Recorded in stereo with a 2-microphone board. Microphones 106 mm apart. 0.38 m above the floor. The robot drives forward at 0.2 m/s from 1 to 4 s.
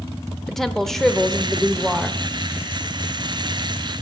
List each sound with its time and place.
0.5 s a woman speaking: 5° left (ahead or behind), 0.8 m